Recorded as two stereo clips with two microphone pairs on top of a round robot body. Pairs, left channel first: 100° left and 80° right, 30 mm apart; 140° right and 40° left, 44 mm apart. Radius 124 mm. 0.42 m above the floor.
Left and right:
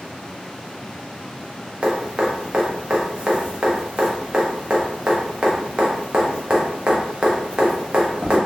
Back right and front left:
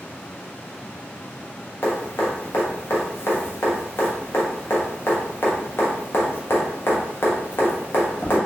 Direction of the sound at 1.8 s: 125° right.